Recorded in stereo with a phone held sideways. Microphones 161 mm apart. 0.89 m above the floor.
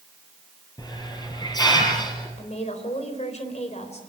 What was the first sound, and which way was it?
A hiss, 25° left (ahead or behind).